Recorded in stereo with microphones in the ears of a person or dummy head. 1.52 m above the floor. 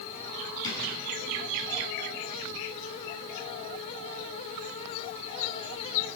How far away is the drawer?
About 8.5 m.